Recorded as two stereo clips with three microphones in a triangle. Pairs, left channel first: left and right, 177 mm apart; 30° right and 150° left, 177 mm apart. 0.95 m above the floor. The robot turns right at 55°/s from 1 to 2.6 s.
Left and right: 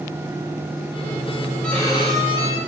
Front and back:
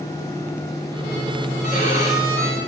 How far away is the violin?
About 8 m.